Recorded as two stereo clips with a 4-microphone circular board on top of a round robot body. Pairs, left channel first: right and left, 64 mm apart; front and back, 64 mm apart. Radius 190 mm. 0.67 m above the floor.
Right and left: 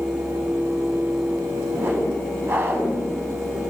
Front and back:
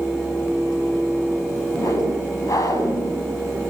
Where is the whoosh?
30° left, 8 m.